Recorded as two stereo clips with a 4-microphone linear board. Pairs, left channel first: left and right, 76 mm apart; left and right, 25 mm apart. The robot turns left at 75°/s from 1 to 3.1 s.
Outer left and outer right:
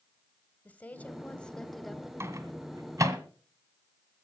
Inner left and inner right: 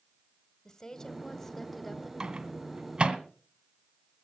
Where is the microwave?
35° right (ahead or behind), 1.5 m; by 3.2 s 40° right (ahead or behind), 1.5 m.